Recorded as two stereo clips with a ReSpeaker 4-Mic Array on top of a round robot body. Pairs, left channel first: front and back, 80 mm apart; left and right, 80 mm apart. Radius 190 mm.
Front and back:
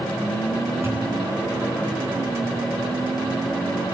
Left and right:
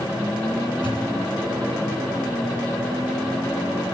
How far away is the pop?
About 10 m.